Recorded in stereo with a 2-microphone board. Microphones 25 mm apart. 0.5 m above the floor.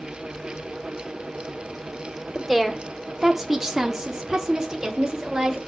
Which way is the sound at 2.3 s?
5° left (ahead or behind).